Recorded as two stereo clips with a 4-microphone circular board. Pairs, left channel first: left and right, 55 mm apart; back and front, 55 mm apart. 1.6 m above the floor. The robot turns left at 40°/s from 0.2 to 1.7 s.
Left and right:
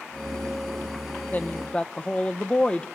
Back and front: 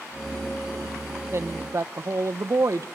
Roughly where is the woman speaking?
Ahead left.